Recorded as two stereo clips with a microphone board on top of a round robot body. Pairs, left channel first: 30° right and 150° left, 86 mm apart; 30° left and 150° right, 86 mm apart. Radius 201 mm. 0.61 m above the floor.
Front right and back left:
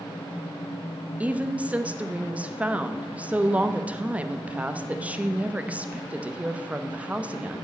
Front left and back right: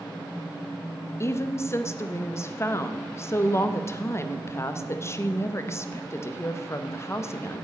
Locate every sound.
1.2 s a woman speaking: 80° left, 1.2 m